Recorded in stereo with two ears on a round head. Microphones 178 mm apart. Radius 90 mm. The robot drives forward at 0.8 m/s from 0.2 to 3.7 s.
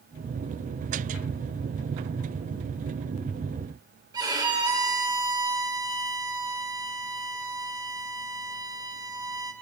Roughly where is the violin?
Centre.